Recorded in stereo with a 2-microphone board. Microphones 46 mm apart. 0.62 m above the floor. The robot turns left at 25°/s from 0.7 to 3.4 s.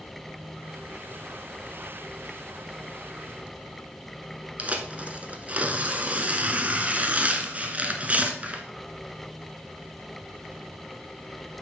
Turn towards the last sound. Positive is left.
turn(degrees=-35)  # may be behind; listen again after turning